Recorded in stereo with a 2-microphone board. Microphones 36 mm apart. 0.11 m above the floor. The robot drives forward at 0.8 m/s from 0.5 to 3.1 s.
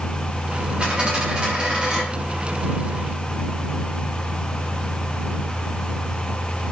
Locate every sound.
0.8 s a dropped coin: 25° right (ahead or behind), 7 m; by 2.0 s 20° right (ahead or behind), 8 m